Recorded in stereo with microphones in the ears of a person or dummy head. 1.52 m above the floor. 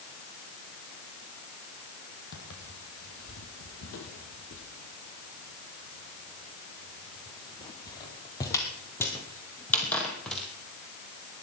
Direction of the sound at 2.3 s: 60° left (ahead or behind).